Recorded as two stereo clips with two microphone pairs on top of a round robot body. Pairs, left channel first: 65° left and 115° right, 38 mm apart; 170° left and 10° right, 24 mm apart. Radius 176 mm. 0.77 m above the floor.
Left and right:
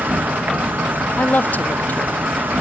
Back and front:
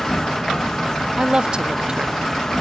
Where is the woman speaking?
30° left, 0.8 m.